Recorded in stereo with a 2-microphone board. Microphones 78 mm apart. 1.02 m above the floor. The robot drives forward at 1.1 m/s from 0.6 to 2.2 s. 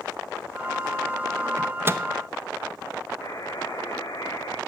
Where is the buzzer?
45° left (ahead or behind), 4 m.